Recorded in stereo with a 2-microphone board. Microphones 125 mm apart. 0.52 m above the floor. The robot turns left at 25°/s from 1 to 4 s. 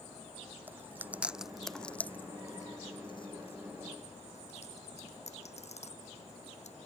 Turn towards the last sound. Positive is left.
turn(degrees=60)  # may be behind; listen again after turning